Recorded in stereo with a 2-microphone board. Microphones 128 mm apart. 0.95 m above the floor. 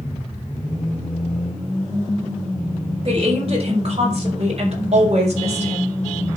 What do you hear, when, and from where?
3.0 s a woman speaking: 50° right (ahead or behind), 5.5 m; by 6.0 s 60° right (ahead or behind), 4 m